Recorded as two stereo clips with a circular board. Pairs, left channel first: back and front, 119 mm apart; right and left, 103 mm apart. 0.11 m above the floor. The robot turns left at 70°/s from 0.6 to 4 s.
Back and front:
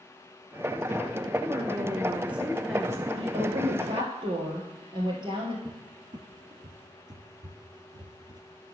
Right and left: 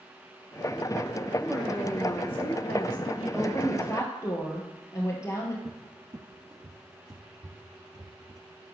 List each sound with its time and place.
1.4 s a woman speaking: 5° left, 1.1 m; by 3.1 s 115° right, 1.1 m
3.2 s a woman speaking: 20° left, 2 m; by 5.5 s 35° right, 2 m
5.7 s a cupboard door: 45° left, 0.8 m